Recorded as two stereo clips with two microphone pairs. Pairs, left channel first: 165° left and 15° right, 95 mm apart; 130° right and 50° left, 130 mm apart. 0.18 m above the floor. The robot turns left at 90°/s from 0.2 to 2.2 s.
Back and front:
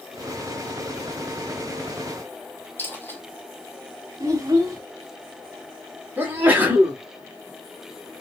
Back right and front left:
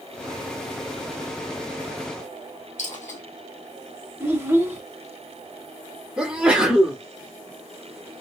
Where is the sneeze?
15° right, 1.0 m.